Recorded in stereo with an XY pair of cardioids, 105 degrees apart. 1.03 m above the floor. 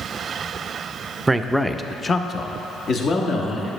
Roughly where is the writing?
I don't hear writing.